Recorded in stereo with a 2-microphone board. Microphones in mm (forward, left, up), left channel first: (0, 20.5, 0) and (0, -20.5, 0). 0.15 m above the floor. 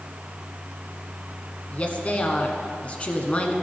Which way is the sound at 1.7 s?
35° left (ahead or behind).